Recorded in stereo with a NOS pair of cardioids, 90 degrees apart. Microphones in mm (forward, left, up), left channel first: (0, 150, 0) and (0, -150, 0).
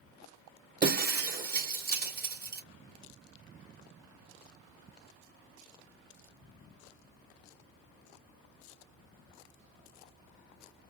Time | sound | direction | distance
0.8 | breaking glass | 30° right | 2.5 m